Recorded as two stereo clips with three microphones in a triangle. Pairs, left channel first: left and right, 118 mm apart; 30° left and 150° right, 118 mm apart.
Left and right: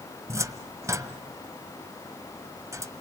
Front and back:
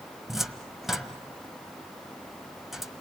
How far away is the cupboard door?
About 1.4 m.